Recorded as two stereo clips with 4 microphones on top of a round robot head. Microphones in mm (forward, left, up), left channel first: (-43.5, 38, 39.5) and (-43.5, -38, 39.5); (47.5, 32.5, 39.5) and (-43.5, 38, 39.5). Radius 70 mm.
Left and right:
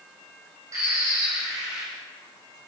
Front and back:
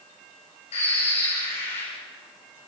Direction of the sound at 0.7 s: 30° right.